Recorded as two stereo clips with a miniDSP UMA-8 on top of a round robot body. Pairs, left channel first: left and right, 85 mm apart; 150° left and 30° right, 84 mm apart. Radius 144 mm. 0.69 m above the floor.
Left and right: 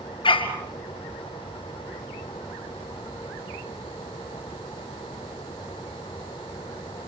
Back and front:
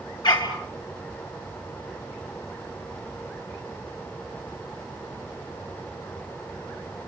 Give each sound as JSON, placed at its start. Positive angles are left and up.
{"t": 0.2, "sound": "a dog barking", "azimuth_deg": 115, "distance_m": 5.0}